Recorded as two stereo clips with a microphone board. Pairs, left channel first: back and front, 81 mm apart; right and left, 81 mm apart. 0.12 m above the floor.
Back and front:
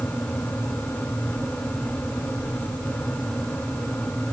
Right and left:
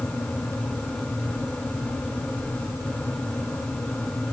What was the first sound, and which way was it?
Only background noise.